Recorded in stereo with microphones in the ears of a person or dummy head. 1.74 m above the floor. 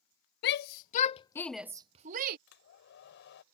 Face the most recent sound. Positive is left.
turn(degrees=60)  # may be behind; listen again after turning